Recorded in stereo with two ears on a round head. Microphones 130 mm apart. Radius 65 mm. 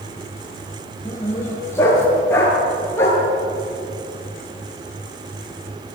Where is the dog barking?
15° left (ahead or behind), 6 m.